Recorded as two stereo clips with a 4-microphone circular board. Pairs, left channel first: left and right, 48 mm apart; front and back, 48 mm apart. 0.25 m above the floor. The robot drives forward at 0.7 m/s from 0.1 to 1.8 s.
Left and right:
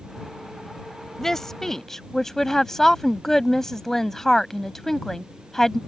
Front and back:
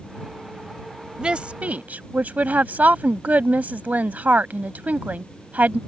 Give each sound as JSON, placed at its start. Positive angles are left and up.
{"t": 1.2, "sound": "a woman speaking", "azimuth_deg": 150}